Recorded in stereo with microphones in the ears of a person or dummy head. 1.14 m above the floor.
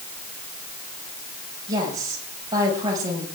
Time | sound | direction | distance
1.7 | a woman speaking | 25° right (ahead or behind) | 5.5 m